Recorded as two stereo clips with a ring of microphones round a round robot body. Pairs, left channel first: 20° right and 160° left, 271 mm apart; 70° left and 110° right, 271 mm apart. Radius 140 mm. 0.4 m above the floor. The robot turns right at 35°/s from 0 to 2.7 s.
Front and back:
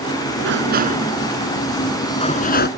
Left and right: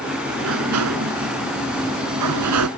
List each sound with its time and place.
0.4 s a sliding door: 155° right; by 2.7 s 75° right